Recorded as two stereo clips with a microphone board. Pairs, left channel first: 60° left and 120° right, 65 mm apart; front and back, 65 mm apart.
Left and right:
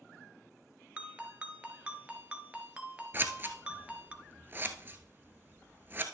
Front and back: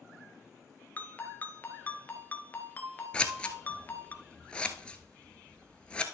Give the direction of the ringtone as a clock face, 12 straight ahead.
2 o'clock.